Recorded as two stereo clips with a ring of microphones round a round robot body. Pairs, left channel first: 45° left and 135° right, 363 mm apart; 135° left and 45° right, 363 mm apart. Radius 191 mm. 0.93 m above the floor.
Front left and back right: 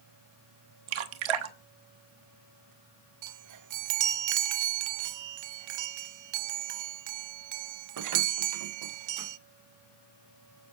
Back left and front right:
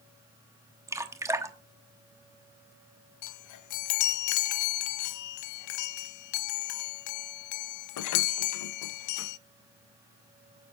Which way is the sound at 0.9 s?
130° right.